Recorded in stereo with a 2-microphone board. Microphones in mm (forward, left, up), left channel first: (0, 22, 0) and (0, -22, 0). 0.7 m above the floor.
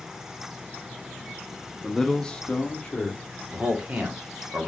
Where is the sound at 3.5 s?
35° right (ahead or behind), 1.6 m.